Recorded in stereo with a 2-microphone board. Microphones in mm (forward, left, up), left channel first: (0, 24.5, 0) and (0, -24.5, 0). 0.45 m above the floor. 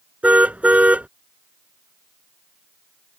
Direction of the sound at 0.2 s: 30° right (ahead or behind).